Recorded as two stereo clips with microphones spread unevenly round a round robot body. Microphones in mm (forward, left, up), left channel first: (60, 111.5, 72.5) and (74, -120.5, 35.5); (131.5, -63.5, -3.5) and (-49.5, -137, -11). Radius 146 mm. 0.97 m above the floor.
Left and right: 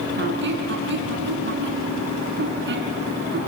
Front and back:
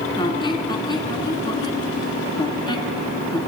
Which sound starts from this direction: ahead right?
A squeak, at 0.2 s.